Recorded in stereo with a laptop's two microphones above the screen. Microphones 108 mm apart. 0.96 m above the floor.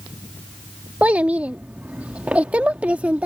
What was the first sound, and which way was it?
A child speaking, 10° right (ahead or behind).